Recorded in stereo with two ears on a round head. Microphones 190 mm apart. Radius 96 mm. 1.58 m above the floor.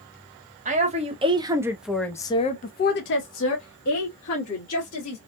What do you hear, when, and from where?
0.7 s a woman speaking: 35° right (ahead or behind), 1.0 m; by 5.2 s 85° left, 1.6 m